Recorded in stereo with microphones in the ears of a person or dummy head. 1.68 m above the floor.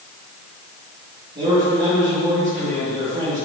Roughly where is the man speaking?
Right.